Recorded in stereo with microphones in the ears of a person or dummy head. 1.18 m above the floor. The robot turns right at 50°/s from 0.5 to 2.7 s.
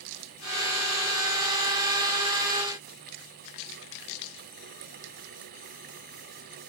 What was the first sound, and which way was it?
Only background noise.